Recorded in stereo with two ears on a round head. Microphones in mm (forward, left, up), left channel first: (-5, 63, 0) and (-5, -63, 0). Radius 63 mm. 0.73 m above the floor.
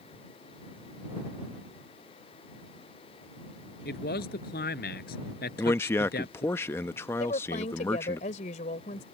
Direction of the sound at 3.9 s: 70° left (ahead or behind).